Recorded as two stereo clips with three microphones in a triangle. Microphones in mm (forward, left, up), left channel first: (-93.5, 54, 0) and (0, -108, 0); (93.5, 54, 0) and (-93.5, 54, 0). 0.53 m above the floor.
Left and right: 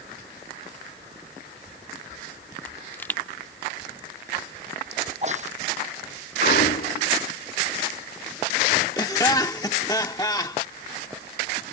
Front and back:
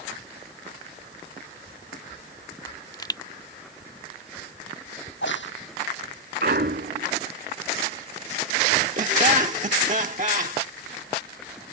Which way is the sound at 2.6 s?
50° left.